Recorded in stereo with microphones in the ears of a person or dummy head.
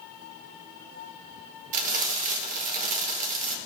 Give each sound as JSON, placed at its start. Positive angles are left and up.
{"t": 1.7, "sound": "frying", "side_deg": -40, "distance_m": 0.9}